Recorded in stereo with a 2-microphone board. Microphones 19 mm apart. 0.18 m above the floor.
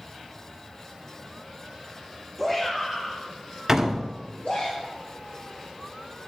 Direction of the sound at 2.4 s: 15° left (ahead or behind).